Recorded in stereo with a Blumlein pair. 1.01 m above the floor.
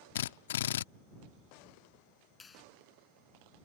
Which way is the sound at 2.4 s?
15° left.